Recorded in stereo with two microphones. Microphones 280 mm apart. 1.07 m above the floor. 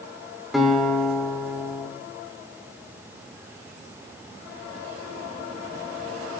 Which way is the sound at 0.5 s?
Centre (ahead or behind).